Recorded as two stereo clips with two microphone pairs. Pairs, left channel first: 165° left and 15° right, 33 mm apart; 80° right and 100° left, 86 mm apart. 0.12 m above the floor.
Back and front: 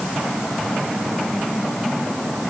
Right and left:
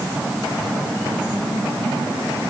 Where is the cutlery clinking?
I don't hear cutlery clinking.